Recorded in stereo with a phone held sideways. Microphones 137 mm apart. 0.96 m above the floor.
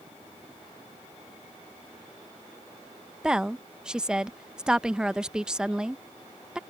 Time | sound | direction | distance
3.2 | a woman speaking | 5° right (ahead or behind) | ?